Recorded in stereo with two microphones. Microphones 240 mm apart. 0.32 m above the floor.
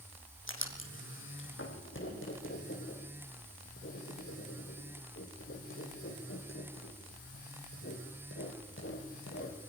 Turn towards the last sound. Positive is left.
turn(degrees=60)  # may be behind; listen again after turning